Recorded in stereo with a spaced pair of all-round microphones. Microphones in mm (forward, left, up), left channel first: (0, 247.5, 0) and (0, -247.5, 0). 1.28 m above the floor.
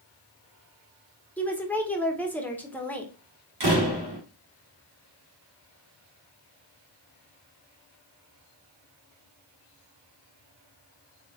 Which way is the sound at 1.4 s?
5° left (ahead or behind).